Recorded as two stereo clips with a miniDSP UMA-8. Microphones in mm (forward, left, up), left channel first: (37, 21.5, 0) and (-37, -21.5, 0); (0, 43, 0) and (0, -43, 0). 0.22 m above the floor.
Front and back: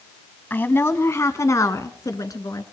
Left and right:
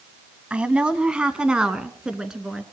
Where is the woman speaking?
20° right, 1.2 m; by 2.6 s 10° right, 2.5 m.